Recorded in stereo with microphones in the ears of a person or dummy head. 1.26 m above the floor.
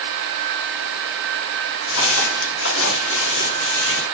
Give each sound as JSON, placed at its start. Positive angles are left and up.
{"t": 1.9, "sound": "footsteps", "side_deg": 70, "distance_m": 5.0}